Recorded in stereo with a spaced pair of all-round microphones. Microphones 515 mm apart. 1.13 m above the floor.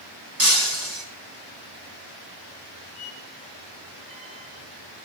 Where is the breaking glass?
35° right (ahead or behind), 3 m.